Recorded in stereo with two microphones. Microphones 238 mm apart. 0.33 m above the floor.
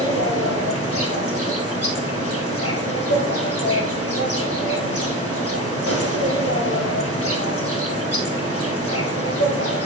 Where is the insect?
85° left, 1.6 m.